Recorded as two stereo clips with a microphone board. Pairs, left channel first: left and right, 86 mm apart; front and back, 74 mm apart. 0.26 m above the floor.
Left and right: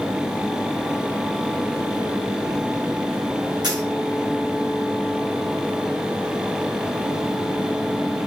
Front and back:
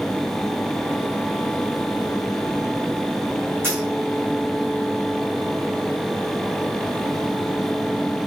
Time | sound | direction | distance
3.6 | a dropped coin | 120° right | 2.0 m